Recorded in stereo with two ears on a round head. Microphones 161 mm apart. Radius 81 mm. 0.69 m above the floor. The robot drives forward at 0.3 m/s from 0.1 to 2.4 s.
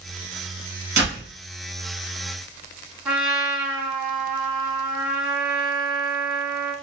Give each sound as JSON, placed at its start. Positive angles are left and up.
{"t": 1.0, "sound": "a door slam", "side_deg": -20, "distance_m": 3.0}
{"t": 3.0, "sound": "a trumpet", "side_deg": -10, "distance_m": 1.9}